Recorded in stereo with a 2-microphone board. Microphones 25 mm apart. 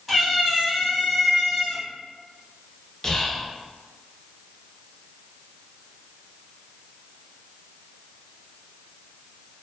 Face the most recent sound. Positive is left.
turn(degrees=20)  # may be behind; listen again after turning